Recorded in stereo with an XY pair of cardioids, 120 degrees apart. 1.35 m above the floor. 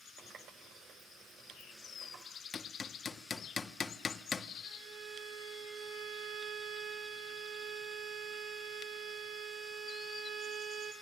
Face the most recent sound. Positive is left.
turn(degrees=-70)